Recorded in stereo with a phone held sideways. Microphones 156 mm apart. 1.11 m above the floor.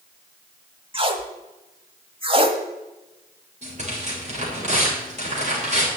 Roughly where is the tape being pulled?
Right.